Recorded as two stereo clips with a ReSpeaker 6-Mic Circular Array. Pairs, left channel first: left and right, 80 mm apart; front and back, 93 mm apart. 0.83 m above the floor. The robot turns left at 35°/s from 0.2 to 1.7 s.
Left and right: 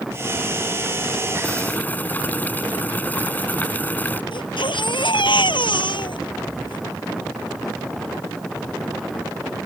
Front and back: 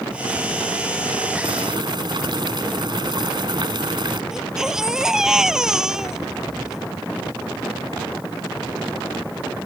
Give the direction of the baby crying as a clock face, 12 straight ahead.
9 o'clock.